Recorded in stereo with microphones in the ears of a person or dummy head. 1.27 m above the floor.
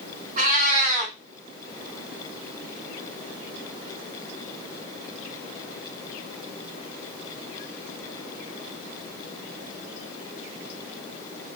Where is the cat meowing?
45° right (ahead or behind), 1.1 m.